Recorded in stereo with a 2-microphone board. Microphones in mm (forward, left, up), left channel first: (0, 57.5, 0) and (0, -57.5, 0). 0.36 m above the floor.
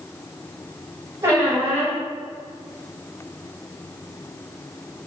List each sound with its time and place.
1.2 s a squeak: 30° right (ahead or behind), 1.8 m